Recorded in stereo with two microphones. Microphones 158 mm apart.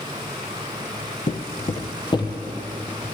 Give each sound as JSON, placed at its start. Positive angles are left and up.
{"t": 1.3, "sound": "footsteps", "side_deg": 60, "distance_m": 0.9}